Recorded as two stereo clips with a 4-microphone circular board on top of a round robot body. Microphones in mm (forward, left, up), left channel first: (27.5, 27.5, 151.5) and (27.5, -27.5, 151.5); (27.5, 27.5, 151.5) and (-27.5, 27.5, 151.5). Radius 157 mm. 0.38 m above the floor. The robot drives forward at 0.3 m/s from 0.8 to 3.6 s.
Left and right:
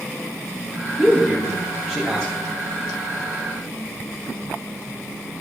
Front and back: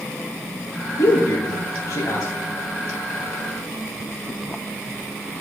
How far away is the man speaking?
About 3 m.